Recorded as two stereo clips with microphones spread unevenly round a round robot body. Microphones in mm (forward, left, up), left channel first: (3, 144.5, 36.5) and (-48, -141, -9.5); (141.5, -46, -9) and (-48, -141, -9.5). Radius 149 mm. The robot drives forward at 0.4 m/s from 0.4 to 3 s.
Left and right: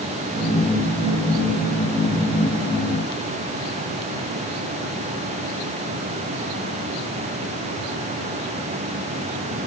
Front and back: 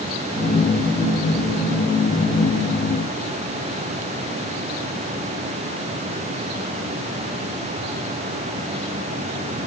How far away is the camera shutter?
No camera shutter in this recording.